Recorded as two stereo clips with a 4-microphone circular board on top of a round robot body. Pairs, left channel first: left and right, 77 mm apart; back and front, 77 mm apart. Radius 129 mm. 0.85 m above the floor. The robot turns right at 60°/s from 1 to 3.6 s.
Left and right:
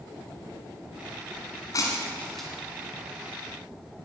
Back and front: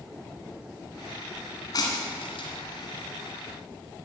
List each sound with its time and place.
1.7 s breaking glass: 135° left, 1.6 m; by 2.5 s straight behind, 1.6 m